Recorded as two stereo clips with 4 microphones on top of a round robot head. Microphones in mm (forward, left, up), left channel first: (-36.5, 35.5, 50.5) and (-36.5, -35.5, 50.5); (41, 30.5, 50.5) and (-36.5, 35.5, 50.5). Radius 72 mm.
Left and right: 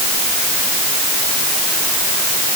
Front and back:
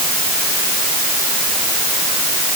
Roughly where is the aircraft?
I don't hear an aircraft.